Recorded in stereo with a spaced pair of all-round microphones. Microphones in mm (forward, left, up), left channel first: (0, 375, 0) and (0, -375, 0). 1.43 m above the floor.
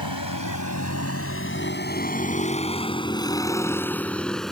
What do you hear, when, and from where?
0.0 s a vehicle: 30° left (ahead or behind); by 4.5 s centre (ahead or behind)